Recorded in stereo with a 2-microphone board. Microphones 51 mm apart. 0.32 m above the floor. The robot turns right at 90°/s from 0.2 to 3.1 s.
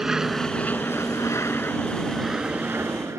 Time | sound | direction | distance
0.0 | an aircraft | 10° right (ahead or behind) | ?